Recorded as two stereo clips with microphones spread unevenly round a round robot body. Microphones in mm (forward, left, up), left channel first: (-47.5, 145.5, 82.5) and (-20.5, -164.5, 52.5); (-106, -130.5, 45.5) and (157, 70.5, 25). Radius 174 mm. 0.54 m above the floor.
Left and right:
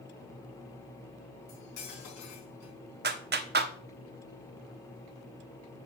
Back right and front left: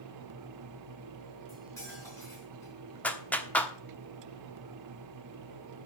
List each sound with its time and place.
1.5 s cutlery clinking: 135° left, 4 m
3.0 s a clap: 55° right, 1.1 m